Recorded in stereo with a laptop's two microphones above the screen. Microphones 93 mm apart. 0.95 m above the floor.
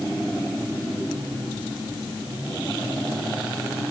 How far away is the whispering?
I don't hear whispering.